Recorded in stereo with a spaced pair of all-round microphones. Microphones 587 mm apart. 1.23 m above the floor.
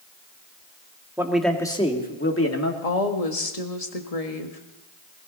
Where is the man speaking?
5° right (ahead or behind), 2.0 m; by 2.7 s 30° left (ahead or behind), 2.0 m.